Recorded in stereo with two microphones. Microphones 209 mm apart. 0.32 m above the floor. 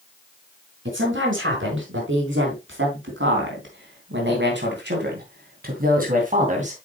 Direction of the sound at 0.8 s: 65° right (ahead or behind).